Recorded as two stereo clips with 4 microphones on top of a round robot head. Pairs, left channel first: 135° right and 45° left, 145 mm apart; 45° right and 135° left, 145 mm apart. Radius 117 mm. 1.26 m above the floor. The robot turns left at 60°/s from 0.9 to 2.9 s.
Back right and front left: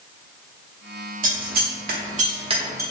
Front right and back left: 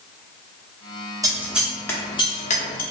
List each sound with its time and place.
1.2 s scissors: 70° left, 0.7 m; by 2.8 s 25° right, 0.7 m